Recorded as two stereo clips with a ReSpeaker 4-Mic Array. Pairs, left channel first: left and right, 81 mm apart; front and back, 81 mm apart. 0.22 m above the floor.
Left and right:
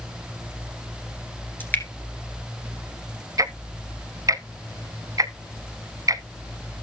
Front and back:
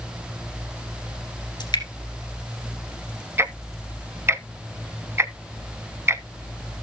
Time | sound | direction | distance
1.6 | dripping | 25° left | 2 m
3.4 | ticking | 125° right | 0.6 m